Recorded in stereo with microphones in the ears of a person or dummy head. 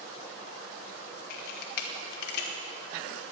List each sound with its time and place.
1.3 s a camera shutter: 60° left (ahead or behind), 1.4 m